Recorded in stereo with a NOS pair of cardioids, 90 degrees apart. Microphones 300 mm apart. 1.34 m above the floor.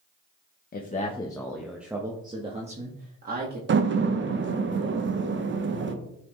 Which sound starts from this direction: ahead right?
A door slam, at 3.7 s.